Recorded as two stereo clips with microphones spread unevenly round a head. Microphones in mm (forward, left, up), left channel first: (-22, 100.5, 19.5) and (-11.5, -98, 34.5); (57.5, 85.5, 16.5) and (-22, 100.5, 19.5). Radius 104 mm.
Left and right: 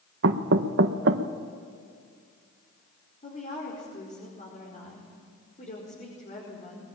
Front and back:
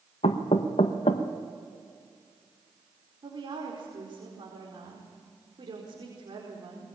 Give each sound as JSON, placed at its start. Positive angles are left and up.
{"t": 0.2, "sound": "knocking", "azimuth_deg": -50, "distance_m": 1.0}
{"t": 3.2, "sound": "a woman speaking", "azimuth_deg": 150, "distance_m": 4.5}